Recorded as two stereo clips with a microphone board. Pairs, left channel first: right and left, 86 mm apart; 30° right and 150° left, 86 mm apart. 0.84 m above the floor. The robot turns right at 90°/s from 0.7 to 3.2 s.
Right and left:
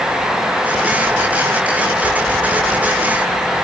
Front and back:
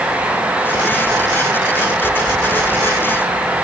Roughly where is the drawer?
I don't hear a drawer.